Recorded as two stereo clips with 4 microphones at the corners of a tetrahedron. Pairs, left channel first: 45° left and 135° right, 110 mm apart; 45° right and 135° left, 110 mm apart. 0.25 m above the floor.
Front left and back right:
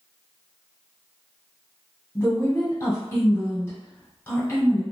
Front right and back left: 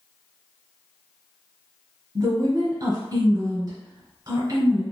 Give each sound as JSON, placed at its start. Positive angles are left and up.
{"t": 2.1, "sound": "a woman speaking", "azimuth_deg": 105, "distance_m": 1.3}